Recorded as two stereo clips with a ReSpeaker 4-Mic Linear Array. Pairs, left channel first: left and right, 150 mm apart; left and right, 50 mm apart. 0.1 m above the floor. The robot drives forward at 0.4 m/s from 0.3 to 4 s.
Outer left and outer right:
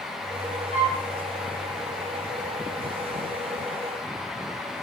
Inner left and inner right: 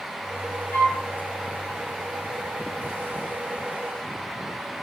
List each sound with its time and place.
0.7 s a flute: 45° left (ahead or behind), 3.5 m